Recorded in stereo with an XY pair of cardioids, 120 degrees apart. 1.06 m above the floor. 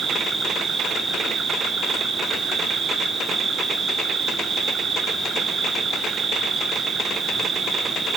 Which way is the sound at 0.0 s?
30° right.